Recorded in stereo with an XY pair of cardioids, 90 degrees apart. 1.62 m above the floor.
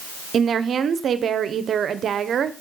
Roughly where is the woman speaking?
Ahead right.